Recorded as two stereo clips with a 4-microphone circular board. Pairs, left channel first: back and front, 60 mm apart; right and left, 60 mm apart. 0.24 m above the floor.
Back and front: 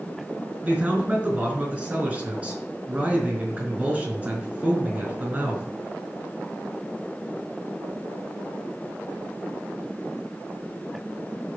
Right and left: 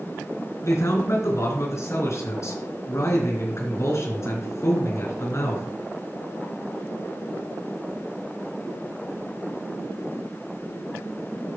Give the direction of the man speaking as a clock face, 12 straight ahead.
2 o'clock.